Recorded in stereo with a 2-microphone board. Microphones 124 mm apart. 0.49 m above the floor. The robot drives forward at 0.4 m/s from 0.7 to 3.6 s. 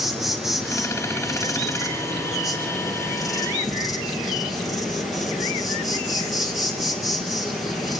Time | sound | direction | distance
0.0 | an insect | centre (ahead or behind) | 4 m